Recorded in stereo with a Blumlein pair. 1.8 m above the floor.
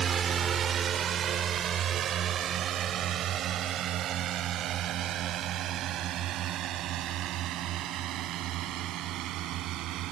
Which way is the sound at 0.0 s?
25° right.